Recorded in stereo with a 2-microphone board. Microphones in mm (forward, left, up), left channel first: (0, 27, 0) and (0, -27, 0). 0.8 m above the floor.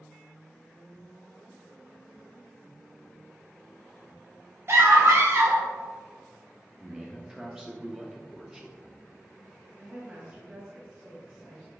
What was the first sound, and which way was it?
A scream, 50° right (ahead or behind).